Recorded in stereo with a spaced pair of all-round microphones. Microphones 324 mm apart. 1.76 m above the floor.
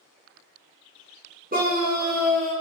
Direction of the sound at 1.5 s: 25° right (ahead or behind).